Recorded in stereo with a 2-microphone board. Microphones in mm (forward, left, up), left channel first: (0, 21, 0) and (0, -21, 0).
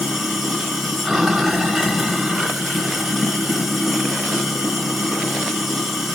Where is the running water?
5° right (ahead or behind), 1.0 m.